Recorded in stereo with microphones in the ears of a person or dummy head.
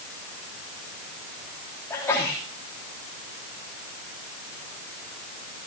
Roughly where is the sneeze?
Centre.